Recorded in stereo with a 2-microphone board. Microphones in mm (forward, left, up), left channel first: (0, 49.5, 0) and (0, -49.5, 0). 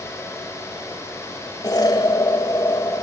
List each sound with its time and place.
1.6 s an explosion: 45° left (ahead or behind), 1.9 m